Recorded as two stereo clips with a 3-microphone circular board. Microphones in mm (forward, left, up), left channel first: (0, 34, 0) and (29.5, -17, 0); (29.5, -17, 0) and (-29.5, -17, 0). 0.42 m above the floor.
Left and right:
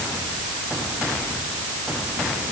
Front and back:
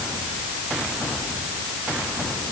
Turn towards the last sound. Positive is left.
No sound to turn to.